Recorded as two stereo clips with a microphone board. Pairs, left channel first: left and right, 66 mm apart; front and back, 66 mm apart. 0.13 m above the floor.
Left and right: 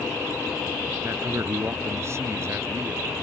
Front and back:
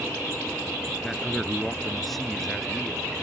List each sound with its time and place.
1.0 s a man speaking: 90° right